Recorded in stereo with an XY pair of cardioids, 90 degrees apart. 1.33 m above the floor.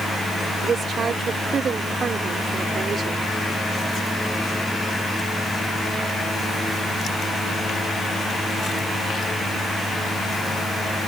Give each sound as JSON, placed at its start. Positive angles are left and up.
{"t": 0.6, "sound": "a woman speaking", "azimuth_deg": -55}